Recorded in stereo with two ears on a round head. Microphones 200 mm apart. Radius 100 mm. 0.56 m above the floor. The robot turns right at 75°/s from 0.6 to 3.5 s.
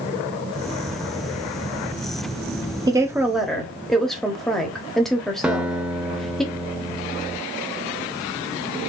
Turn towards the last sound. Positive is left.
turn(degrees=-5)  # may be behind; listen again after turning